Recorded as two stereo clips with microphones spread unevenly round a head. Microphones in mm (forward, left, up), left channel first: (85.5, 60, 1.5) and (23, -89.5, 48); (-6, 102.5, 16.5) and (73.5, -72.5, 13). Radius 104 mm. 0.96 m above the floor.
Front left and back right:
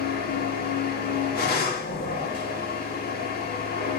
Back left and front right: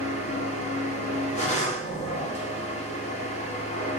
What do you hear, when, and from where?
0.0 s a machine running: 60° left, 1.4 m